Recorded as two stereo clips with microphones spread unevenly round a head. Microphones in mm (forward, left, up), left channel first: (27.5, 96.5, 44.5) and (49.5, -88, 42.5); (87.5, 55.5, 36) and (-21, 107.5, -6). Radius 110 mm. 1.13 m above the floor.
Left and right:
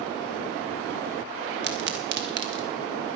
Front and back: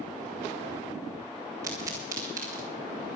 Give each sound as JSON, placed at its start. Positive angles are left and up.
{"t": 1.6, "sound": "a pop", "azimuth_deg": -125, "distance_m": 1.3}